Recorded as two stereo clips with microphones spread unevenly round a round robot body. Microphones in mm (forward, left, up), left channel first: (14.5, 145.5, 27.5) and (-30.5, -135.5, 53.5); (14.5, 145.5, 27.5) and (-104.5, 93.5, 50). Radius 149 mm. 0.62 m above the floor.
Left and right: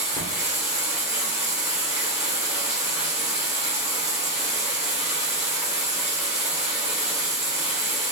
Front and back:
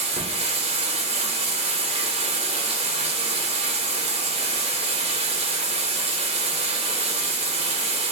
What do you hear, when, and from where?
0.0 s running water: 175° right, 1.2 m